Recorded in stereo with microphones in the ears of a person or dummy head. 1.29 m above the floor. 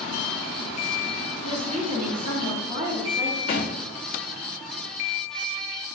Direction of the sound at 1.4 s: 30° right (ahead or behind).